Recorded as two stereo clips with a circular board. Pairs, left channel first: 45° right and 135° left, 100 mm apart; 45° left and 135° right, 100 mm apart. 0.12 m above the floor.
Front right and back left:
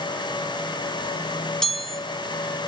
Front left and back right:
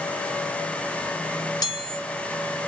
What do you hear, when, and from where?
1.6 s a chime: 40° left, 1.5 m